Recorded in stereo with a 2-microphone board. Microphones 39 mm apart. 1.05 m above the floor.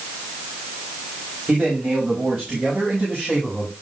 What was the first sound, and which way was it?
A man speaking, 20° right (ahead or behind).